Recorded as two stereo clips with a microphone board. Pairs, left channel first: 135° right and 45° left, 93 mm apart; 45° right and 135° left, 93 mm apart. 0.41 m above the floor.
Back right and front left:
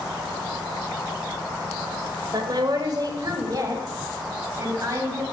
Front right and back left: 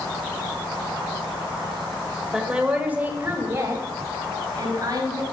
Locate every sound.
2.3 s a woman speaking: 50° left, 1.4 m; by 5.2 s 95° left, 2.5 m